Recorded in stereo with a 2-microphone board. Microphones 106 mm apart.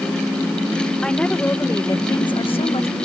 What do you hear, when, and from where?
1.0 s a woman speaking: 5° left (ahead or behind); by 3.0 s 70° left (ahead or behind)